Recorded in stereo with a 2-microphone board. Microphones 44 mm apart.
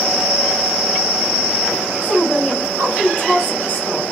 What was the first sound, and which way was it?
A woman speaking, 40° left (ahead or behind).